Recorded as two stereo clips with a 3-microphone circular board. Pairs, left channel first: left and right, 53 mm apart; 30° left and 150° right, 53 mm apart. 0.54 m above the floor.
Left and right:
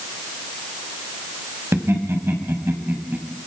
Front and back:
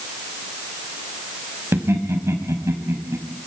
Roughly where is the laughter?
Behind right.